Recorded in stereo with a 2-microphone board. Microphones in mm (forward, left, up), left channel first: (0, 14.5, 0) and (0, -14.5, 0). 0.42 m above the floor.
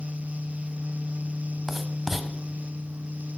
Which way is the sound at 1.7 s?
5° right (ahead or behind).